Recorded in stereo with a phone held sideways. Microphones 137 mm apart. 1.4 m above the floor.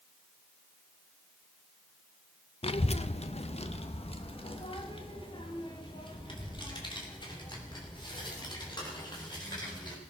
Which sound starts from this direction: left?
A child speaking, at 2.6 s.